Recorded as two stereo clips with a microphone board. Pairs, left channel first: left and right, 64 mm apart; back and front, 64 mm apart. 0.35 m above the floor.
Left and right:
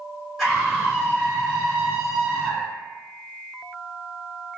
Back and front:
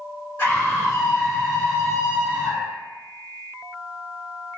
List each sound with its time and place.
0.4 s a scream: 170° right, 1.4 m; by 2.8 s 30° right, 1.3 m